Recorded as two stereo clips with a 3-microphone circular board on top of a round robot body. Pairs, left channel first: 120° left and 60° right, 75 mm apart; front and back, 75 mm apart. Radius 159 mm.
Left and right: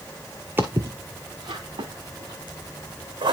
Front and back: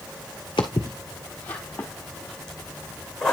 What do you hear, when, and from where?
0.6 s footsteps: 5° right, 0.6 m; by 3.3 s 85° right, 2.5 m